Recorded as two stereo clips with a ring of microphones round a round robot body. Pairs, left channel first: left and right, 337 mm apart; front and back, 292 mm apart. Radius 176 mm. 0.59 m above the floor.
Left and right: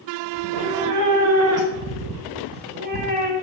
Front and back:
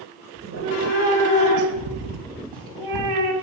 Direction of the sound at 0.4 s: 115° right.